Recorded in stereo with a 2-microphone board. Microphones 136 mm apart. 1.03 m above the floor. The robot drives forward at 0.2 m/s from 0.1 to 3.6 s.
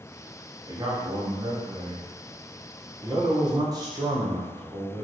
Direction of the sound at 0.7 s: 30° right (ahead or behind).